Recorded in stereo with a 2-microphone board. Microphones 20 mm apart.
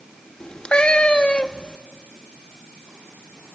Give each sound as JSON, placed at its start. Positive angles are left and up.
{"t": 0.4, "sound": "a cat meowing", "side_deg": 55, "distance_m": 1.0}